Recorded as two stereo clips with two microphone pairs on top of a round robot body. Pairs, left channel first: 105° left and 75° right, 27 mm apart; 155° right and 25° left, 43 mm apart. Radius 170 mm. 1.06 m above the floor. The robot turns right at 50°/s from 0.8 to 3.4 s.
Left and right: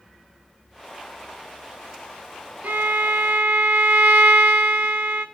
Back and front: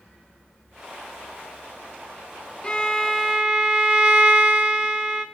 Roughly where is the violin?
Right.